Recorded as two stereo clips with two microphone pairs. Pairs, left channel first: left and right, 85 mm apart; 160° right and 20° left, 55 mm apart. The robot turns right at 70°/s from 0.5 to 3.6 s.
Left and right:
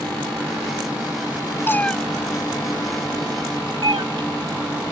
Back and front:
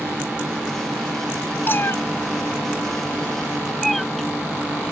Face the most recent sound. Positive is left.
turn(degrees=-75)